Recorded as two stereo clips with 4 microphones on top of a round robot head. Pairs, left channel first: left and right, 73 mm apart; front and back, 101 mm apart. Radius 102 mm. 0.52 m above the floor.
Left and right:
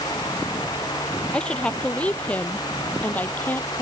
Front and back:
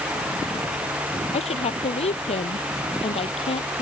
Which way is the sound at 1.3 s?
15° left.